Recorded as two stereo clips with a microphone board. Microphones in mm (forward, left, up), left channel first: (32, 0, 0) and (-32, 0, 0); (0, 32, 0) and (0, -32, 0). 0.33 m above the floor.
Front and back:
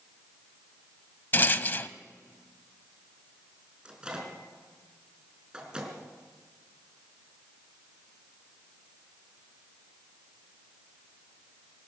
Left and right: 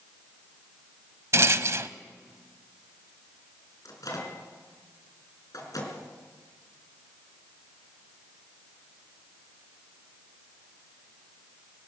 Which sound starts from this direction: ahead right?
A rattle, at 1.3 s.